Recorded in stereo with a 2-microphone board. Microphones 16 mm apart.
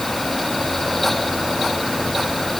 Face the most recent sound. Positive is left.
No sound to turn to.